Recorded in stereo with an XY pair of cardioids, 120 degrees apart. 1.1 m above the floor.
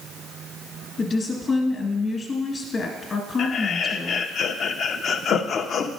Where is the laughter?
45° left, 0.8 m.